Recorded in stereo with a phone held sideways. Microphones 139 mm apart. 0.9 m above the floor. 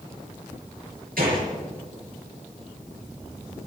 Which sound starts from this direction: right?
A gunshot, at 1.2 s.